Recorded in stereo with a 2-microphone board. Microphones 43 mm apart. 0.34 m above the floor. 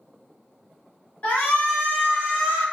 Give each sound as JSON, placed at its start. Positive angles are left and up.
{"t": 1.2, "sound": "a shout", "side_deg": 30, "distance_m": 1.2}